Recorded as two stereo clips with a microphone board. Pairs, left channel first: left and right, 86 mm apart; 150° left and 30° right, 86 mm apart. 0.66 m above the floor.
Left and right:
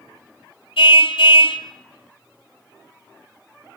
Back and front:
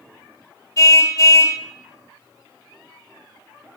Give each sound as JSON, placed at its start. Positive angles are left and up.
{"t": 0.8, "sound": "a car horn", "azimuth_deg": 100, "distance_m": 2.0}